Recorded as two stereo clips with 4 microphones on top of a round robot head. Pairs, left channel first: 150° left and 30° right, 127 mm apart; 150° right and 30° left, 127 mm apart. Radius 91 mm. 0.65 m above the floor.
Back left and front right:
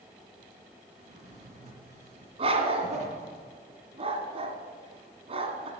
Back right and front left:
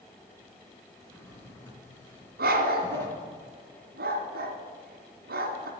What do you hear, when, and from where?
1.0 s a drawer: 75° right, 3.5 m
2.4 s a dog barking: 20° left, 1.6 m